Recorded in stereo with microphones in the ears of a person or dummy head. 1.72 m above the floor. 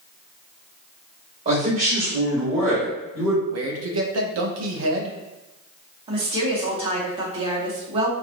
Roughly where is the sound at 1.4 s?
Right.